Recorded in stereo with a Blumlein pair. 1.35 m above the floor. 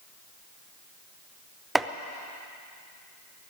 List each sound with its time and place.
1.8 s chopping: 10° right, 0.6 m